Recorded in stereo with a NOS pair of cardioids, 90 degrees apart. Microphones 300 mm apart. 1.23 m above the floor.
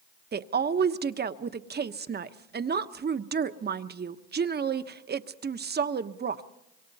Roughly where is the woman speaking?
Ahead right.